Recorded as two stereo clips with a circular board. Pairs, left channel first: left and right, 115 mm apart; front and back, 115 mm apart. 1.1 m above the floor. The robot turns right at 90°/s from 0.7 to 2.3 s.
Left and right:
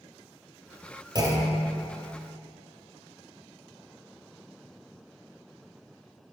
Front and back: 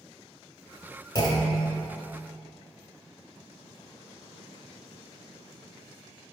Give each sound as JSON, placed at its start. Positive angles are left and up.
{"t": 1.1, "sound": "a clunk", "azimuth_deg": -45, "distance_m": 1.2}